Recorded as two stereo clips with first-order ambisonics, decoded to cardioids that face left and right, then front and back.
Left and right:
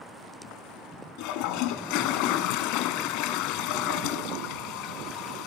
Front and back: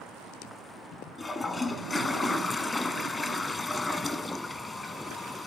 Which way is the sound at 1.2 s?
80° left.